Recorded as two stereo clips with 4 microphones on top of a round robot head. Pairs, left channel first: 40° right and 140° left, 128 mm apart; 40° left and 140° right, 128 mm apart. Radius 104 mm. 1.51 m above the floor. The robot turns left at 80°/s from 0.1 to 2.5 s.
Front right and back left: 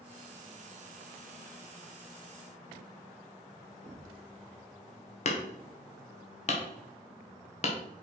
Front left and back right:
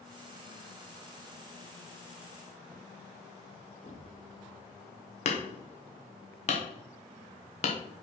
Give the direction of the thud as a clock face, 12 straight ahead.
9 o'clock.